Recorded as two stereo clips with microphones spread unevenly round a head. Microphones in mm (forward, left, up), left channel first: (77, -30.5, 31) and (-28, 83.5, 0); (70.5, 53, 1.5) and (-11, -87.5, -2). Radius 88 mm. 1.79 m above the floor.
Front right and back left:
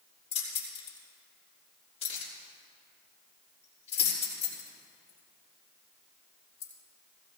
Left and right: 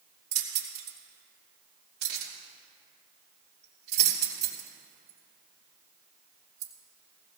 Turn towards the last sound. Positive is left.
turn(degrees=-100)